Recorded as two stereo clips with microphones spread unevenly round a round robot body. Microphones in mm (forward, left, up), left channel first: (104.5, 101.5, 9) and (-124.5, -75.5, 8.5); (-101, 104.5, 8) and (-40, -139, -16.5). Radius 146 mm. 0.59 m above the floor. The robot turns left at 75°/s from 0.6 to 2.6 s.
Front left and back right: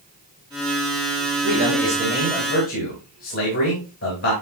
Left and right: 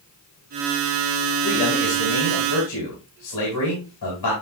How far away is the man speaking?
About 3.5 m.